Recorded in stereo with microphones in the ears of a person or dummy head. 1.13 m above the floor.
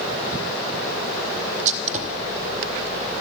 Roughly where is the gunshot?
Right.